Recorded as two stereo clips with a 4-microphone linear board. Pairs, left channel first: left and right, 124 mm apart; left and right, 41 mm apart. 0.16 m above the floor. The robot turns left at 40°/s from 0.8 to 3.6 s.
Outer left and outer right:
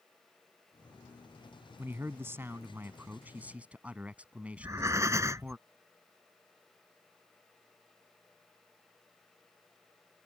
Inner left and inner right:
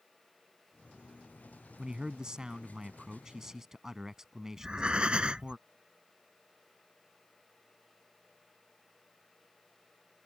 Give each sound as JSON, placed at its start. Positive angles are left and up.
{"t": 1.8, "sound": "a man speaking", "side_deg": -20}
{"t": 4.6, "sound": "breathing", "side_deg": -25}